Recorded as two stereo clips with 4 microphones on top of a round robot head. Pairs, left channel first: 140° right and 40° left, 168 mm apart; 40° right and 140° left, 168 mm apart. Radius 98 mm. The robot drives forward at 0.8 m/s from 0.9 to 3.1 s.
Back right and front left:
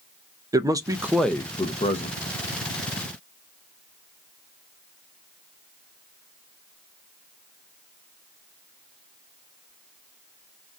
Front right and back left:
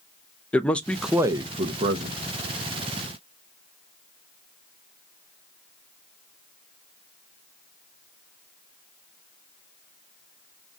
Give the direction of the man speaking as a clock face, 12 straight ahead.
11 o'clock.